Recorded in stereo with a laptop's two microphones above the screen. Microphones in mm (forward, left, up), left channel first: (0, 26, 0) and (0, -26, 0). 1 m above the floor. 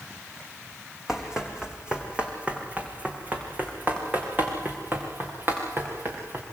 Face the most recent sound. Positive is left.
turn(degrees=-45)  # may be behind; listen again after turning